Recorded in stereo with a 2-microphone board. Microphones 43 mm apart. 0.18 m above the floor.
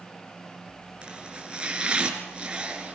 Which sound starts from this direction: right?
Chopping, at 1.0 s.